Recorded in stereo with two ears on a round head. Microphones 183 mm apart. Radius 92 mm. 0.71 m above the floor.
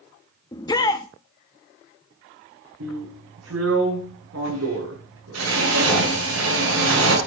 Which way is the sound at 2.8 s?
80° right.